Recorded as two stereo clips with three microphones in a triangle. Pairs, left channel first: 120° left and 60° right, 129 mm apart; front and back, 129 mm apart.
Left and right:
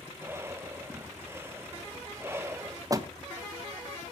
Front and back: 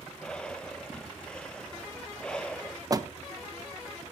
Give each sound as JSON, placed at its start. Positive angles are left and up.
{"t": 0.2, "sound": "breathing", "azimuth_deg": -70, "distance_m": 0.7}
{"t": 2.9, "sound": "a door slam", "azimuth_deg": -120, "distance_m": 1.1}